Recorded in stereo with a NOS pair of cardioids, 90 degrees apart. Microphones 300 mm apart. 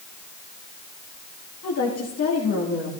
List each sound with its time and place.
1.6 s a woman speaking: 55° left, 2 m